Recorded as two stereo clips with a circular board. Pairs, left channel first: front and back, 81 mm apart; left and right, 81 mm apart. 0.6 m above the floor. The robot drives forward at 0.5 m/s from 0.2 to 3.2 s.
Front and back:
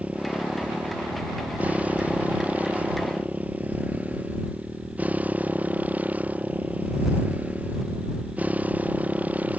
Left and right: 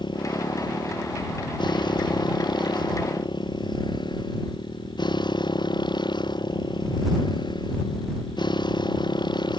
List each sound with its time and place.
0.0 s a motorcycle: 105° left; by 9.6 s 110° left